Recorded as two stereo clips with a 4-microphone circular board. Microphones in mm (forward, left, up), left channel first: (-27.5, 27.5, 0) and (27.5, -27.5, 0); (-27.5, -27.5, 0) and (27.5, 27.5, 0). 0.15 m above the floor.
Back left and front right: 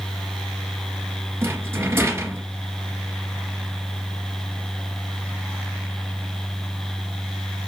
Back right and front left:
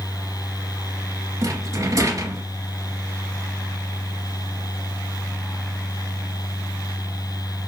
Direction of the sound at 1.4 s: 10° left.